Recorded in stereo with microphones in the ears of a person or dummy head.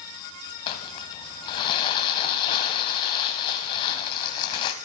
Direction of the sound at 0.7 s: 30° left (ahead or behind).